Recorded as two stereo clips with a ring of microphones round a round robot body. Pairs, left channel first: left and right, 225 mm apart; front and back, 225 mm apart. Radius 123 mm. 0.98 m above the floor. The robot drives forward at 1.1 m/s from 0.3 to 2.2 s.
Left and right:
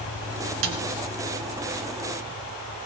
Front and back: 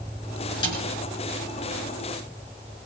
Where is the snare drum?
70° right, 2 m; by 0.8 s 75° right, 2 m.